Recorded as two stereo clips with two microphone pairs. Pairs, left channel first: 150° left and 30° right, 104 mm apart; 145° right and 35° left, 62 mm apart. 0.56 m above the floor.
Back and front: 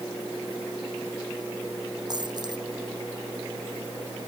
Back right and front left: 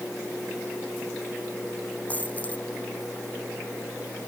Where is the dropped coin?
80° right.